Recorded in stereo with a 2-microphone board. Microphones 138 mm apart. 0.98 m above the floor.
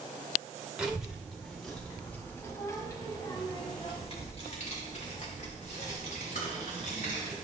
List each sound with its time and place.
0.8 s a child speaking: 5° right (ahead or behind), 2.5 m; by 7.3 s 85° left, 3.5 m